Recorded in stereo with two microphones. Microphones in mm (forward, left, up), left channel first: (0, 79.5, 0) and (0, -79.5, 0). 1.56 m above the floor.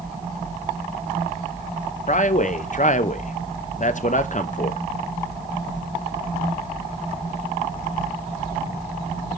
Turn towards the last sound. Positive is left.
turn(degrees=55)  # may be behind; listen again after turning